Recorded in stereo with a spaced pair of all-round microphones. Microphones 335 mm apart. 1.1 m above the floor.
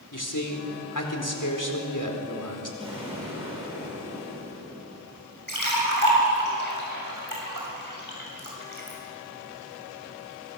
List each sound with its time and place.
0.1 s a man speaking: 65° left (ahead or behind), 4 m
2.8 s an explosion: 15° right (ahead or behind), 9 m
5.5 s a splash: 70° right (ahead or behind), 6.5 m